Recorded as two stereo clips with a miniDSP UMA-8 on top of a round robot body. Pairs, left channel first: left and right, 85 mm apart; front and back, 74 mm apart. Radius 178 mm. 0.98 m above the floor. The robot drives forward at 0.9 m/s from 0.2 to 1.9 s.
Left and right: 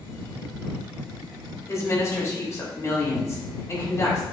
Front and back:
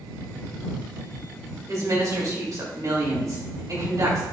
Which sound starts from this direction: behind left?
A woman speaking, at 1.7 s.